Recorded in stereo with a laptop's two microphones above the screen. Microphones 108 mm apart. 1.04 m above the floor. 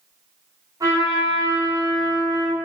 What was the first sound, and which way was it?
A trumpet, 35° right (ahead or behind).